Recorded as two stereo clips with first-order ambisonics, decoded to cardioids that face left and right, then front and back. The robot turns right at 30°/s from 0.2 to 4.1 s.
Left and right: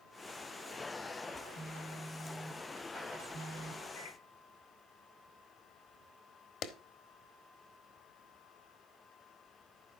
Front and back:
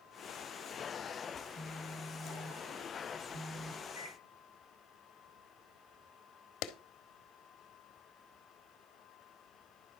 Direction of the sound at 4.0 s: 105° left.